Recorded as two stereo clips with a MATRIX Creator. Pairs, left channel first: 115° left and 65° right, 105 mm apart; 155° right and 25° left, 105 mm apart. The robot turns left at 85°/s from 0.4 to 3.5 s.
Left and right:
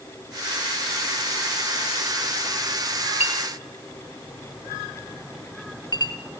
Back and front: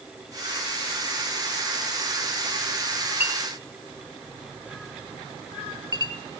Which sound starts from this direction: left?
A clink, at 3.2 s.